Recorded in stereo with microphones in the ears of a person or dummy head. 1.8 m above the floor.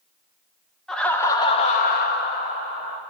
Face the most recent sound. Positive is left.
turn(degrees=45)  # may be behind; listen again after turning